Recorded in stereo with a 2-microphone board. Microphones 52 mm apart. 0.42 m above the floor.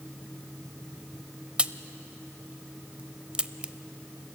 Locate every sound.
1.6 s a crack: 20° right (ahead or behind), 0.5 m